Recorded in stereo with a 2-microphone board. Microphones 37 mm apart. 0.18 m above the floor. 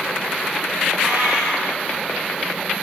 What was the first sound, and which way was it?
A cat meowing, 80° right.